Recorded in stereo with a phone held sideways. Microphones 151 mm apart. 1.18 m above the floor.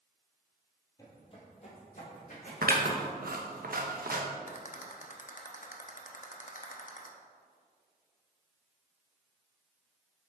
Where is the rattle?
60° left (ahead or behind), 0.8 m.